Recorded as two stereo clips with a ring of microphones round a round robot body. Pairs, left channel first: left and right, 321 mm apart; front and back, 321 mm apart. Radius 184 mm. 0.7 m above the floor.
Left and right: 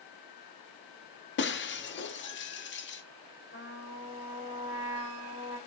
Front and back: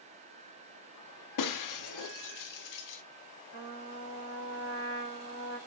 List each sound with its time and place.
1.4 s breaking glass: 30° left, 0.6 m
3.5 s a trumpet: 45° left, 2.5 m